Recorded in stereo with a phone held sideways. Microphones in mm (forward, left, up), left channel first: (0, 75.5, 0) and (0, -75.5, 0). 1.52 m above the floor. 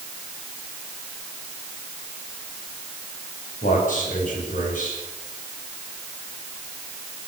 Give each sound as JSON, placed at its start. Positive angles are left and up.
{"t": 3.6, "sound": "a man speaking", "side_deg": 60, "distance_m": 9.0}